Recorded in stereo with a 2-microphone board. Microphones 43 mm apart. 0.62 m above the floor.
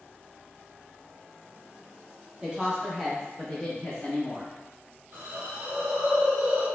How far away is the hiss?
About 1.1 m.